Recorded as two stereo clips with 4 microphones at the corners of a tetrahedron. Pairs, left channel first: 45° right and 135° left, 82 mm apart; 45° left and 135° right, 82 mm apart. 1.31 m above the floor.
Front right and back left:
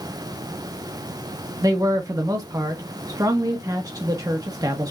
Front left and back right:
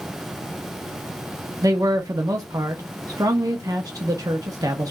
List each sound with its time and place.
1.6 s a man speaking: straight behind, 1.2 m